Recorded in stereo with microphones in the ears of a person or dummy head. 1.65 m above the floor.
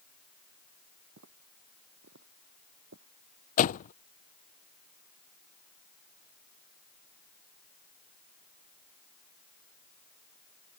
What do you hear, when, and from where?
1.2 s footsteps: 65° right (ahead or behind); by 3.1 s 70° right (ahead or behind)
3.6 s a door slam: 45° left (ahead or behind)